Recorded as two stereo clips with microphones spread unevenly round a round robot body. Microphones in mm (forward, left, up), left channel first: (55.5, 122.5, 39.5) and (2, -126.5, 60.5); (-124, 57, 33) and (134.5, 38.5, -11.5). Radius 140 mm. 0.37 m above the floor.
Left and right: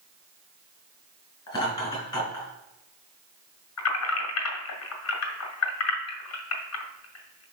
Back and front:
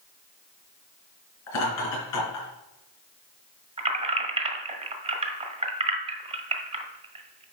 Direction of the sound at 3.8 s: 60° left.